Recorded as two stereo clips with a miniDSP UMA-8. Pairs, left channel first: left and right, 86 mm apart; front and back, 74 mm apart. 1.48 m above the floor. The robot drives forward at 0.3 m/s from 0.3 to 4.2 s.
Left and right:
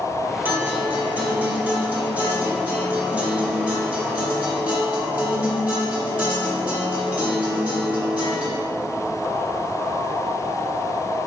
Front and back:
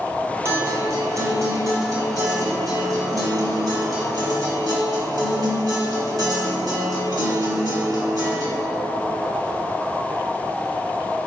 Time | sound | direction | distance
0.5 | a guitar | 145° right | 1.8 m